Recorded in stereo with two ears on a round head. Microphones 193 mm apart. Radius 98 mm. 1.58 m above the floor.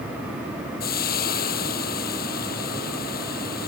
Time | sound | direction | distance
0.8 | frying | 45° left (ahead or behind) | ?